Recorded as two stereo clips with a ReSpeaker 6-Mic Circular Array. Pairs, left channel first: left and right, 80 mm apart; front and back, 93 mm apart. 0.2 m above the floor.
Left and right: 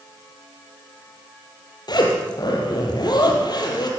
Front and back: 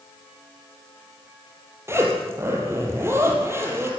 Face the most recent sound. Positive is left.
turn(degrees=115)